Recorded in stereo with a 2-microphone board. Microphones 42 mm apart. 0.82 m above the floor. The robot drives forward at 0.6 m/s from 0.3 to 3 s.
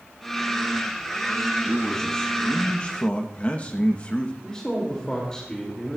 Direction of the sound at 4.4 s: 15° left (ahead or behind).